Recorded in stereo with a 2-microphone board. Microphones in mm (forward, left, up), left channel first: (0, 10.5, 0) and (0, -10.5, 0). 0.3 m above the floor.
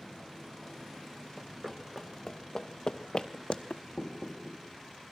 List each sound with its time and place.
1.4 s running footsteps: 5° right (ahead or behind), 1.1 m; by 3.8 s 70° left (ahead or behind), 0.9 m
4.0 s knocking: 30° left (ahead or behind), 5 m